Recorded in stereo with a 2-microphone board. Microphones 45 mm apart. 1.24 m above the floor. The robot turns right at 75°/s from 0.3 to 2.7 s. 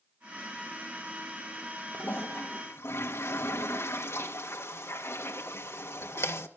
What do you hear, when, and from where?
1.9 s a toilet flushing: 35° left, 1.7 m; by 6.5 s 95° left, 1.7 m